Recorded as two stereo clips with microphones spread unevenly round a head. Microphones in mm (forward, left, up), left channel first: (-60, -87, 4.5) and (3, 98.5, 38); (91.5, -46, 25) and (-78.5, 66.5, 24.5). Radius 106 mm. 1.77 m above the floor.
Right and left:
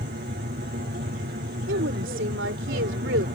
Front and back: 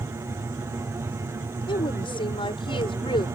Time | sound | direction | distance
0.0 | an aircraft | 75° left | ?
1.7 | a woman speaking | 35° left | ?